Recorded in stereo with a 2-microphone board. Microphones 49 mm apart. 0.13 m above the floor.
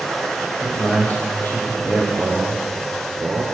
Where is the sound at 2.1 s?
55° right (ahead or behind), 2.5 m.